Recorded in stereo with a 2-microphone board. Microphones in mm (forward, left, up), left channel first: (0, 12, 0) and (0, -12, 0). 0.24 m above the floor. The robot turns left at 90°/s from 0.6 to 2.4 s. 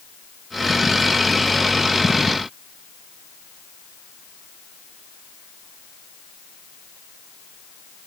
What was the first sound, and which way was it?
Only background noise.